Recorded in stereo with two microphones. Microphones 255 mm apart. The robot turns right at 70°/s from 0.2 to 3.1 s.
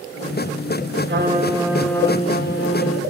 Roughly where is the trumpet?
Ahead right.